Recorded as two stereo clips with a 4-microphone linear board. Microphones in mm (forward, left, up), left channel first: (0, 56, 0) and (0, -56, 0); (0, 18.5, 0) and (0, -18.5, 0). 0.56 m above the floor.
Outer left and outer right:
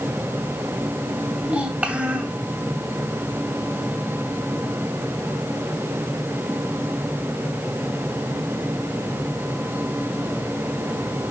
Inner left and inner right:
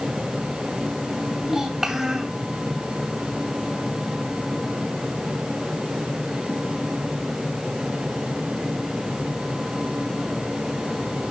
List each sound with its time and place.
1.4 s a child speaking: 10° right (ahead or behind), 2.5 m